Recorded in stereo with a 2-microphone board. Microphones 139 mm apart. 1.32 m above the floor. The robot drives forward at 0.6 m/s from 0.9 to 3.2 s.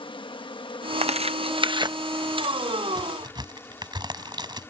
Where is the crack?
30° right (ahead or behind); by 4.7 s 35° right (ahead or behind).